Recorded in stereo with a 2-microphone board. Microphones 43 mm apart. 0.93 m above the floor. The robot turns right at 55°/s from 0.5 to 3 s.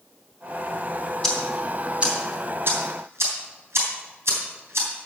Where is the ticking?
15° left (ahead or behind), 3.5 m; by 4.9 s 80° right, 3.5 m.